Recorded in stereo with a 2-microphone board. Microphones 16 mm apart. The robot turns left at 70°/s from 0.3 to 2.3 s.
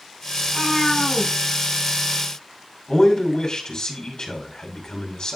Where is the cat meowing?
45° left, 4.5 m; by 1.3 s 20° right, 4.5 m.